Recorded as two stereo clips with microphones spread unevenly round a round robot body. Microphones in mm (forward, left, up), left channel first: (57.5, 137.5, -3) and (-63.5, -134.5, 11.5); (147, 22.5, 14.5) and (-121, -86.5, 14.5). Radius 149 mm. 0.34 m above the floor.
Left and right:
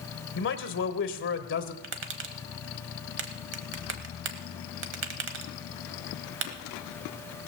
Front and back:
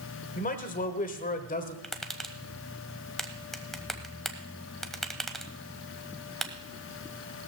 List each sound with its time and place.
0.3 s a man speaking: 70° left, 1.1 m
1.8 s tapping: 65° right, 1.2 m